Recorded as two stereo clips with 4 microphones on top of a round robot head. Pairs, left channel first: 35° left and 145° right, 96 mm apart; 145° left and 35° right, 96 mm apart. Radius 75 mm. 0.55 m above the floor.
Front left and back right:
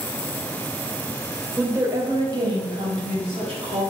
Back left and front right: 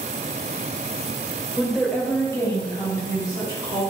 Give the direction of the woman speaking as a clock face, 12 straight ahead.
4 o'clock.